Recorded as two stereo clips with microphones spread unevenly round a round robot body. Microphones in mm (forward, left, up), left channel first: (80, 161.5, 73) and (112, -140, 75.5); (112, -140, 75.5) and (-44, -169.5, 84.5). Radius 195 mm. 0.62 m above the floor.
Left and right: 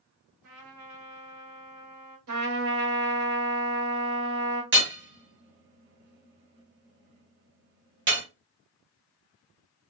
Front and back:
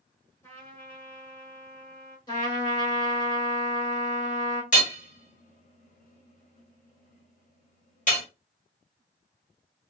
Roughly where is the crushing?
I don't hear crushing.